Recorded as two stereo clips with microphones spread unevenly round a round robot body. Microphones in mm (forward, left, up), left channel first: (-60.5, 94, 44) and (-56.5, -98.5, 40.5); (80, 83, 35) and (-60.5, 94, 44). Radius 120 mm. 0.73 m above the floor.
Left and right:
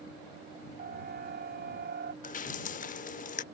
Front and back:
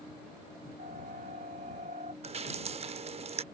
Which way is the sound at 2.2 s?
135° left.